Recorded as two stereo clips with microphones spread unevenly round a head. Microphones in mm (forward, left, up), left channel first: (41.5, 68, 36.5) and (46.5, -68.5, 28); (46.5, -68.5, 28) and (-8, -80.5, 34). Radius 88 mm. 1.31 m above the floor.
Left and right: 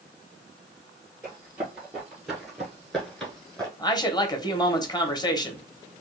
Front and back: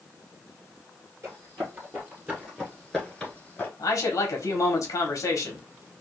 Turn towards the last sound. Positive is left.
turn(degrees=30)